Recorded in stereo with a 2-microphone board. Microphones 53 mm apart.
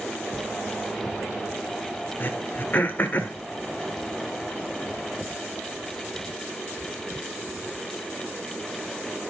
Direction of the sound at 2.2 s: 40° left (ahead or behind).